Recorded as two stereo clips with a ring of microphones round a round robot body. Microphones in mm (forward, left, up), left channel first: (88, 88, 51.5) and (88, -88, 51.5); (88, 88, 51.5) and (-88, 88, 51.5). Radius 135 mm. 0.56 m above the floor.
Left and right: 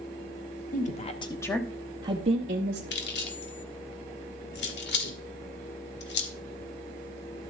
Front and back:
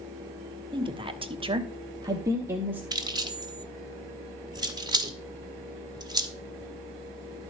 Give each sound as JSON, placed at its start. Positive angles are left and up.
{"t": 0.7, "sound": "a woman speaking", "azimuth_deg": 120, "distance_m": 1.5}
{"t": 2.9, "sound": "keys jangling", "azimuth_deg": 110, "distance_m": 1.5}